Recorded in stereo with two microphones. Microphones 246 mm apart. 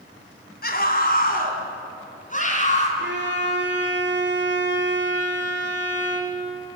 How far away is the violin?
About 2.5 m.